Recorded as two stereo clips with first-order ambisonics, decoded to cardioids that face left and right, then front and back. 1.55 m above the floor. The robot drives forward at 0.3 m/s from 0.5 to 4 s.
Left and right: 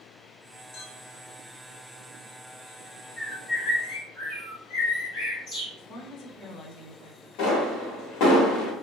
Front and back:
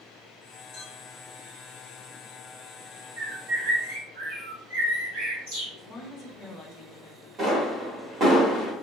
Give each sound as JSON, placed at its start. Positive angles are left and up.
{"t": 0.7, "sound": "a clink", "azimuth_deg": 50, "distance_m": 1.8}
{"t": 3.2, "sound": "a bird", "azimuth_deg": 165, "distance_m": 1.8}
{"t": 5.8, "sound": "a woman speaking", "azimuth_deg": 60, "distance_m": 0.7}
{"t": 7.4, "sound": "a pop", "azimuth_deg": 120, "distance_m": 1.0}